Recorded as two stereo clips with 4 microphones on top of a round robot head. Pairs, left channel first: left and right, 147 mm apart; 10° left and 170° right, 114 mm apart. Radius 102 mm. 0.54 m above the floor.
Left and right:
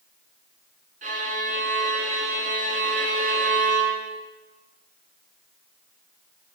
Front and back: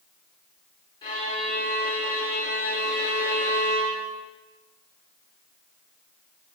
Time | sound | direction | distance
1.0 | a violin | 55° right | 1.8 m